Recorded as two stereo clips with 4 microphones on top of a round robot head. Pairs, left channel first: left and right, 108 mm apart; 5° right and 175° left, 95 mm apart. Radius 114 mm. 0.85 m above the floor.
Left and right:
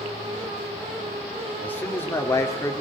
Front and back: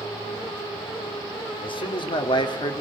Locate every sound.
1.6 s a man speaking: 15° left, 2.5 m; by 2.8 s 35° left, 1.6 m